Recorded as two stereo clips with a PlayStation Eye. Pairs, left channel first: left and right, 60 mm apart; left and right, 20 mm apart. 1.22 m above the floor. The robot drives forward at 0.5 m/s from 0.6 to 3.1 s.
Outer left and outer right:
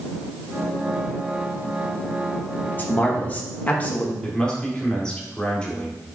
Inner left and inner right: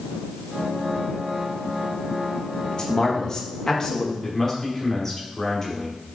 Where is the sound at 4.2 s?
15° left (ahead or behind), 3 m.